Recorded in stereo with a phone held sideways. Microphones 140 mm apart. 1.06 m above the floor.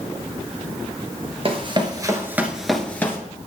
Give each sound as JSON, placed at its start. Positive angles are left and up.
{"t": 1.4, "sound": "running footsteps", "side_deg": -40, "distance_m": 1.3}